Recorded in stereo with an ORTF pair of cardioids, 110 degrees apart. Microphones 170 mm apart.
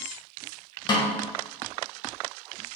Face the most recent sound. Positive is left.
turn(degrees=30)